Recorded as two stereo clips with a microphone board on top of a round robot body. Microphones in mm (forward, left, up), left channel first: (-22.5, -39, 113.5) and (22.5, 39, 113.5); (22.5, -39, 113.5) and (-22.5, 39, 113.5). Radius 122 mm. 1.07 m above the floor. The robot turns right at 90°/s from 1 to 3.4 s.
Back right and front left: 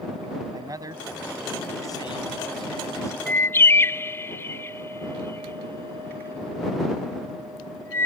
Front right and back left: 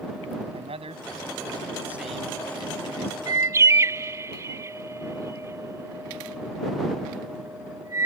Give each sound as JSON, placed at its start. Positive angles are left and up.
{"t": 0.5, "sound": "a man speaking", "azimuth_deg": 110}
{"t": 3.3, "sound": "a bird", "azimuth_deg": 165}